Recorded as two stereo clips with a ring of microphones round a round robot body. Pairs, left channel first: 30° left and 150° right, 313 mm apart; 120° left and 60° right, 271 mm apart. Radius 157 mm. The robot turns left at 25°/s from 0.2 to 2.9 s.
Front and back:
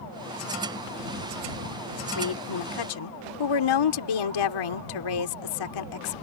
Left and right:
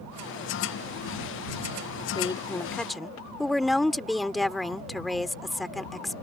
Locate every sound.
2.1 s a woman speaking: 50° left; by 6.1 s 30° left